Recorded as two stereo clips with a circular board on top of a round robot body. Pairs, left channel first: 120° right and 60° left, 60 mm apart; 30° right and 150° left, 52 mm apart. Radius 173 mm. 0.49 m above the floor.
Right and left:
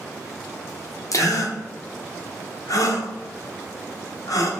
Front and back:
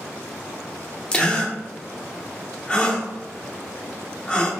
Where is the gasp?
100° right, 0.8 m.